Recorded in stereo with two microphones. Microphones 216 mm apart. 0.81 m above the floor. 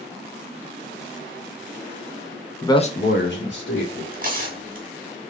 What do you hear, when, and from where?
2.6 s a man speaking: 10° left (ahead or behind), 0.7 m; by 4.0 s 65° left (ahead or behind), 1.8 m
4.1 s tearing paper: 45° right (ahead or behind), 1.3 m